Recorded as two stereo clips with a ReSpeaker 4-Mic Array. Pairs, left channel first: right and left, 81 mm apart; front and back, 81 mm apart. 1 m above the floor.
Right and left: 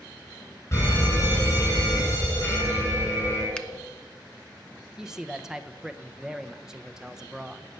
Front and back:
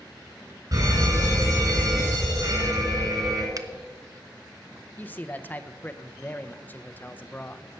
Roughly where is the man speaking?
Ahead.